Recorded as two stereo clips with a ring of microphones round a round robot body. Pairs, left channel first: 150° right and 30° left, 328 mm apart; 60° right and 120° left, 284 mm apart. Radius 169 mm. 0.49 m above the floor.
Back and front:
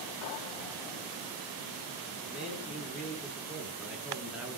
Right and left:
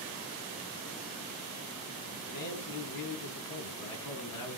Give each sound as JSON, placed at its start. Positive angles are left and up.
{"t": 2.2, "sound": "a man speaking", "azimuth_deg": -55, "distance_m": 5.5}